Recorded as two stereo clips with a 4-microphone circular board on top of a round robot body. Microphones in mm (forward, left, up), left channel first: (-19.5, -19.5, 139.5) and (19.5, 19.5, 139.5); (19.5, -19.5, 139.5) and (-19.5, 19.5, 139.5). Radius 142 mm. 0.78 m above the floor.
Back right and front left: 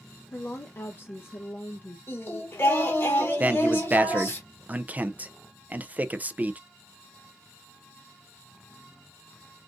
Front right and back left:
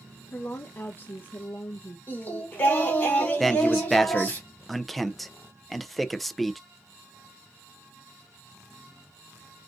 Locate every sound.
0.3 s a woman speaking: 95° right, 0.7 m
2.1 s singing: 100° right, 1.8 m
3.4 s a man speaking: 45° left, 0.6 m